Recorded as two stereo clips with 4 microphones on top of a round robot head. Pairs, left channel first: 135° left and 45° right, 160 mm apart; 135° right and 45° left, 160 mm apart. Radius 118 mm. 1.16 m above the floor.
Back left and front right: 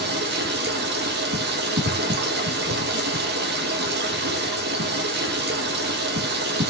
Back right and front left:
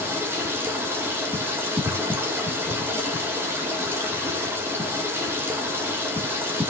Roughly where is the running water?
Ahead right.